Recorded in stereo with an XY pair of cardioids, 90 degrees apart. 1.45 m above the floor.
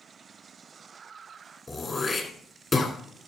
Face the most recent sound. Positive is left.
turn(degrees=25)